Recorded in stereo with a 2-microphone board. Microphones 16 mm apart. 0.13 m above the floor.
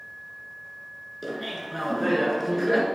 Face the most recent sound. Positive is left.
turn(degrees=-5)  # may be behind; listen again after turning